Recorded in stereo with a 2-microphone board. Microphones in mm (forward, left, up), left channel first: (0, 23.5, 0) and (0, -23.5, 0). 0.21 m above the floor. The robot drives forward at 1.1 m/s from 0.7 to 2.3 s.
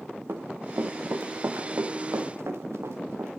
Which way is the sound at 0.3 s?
60° right (ahead or behind).